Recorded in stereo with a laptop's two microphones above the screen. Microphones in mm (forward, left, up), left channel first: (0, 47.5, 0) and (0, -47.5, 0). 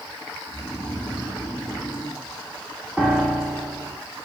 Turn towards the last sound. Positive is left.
turn(degrees=-10)  # may be behind; listen again after turning